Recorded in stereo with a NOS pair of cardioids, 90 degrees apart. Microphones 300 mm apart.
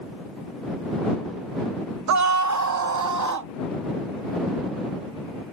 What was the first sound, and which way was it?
A scream, 65° right.